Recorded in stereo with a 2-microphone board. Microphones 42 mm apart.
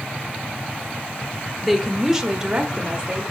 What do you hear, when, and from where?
1.6 s a woman speaking: centre (ahead or behind), 0.8 m; by 3.2 s 25° right (ahead or behind), 1.3 m